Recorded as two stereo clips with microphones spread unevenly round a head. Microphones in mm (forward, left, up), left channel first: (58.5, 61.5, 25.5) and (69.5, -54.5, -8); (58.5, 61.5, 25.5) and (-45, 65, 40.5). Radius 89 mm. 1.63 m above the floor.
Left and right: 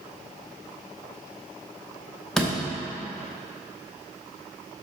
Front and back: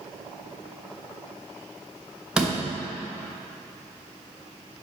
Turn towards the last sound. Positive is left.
turn(degrees=125)